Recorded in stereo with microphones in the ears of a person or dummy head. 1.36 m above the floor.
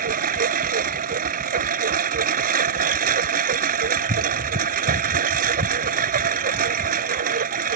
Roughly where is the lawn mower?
Right.